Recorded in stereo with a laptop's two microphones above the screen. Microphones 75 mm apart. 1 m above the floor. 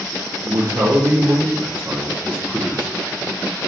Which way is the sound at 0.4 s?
60° right (ahead or behind).